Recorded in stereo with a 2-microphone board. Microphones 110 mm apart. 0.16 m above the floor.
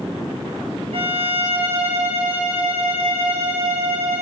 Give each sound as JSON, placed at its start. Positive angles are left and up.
{"t": 0.9, "sound": "a violin", "side_deg": -55, "distance_m": 5.0}